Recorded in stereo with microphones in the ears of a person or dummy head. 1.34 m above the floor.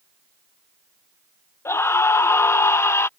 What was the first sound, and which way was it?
A scream, 10° left (ahead or behind).